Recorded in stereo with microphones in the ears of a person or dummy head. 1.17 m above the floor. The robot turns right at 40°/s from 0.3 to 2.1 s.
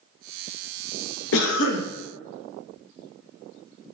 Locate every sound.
1.3 s a cough: 75° left (ahead or behind), 0.5 m; by 1.9 s 55° left (ahead or behind), 0.5 m